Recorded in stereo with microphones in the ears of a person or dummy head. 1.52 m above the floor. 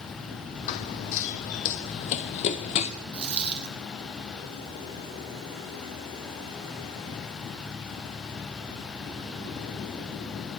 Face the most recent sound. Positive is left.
turn(degrees=-30)  # may be behind; listen again after turning